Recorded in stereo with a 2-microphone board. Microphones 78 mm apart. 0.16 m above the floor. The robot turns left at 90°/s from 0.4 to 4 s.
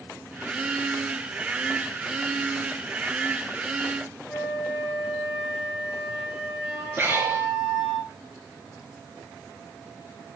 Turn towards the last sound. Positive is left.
turn(degrees=-25)  # may be behind; listen again after turning